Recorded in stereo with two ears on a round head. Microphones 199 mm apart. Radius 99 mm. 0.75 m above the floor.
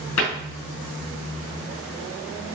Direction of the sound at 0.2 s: 85° left.